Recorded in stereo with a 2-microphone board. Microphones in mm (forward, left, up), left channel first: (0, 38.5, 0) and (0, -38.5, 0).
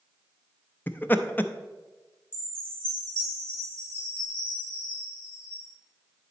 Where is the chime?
20° left (ahead or behind), 4 m.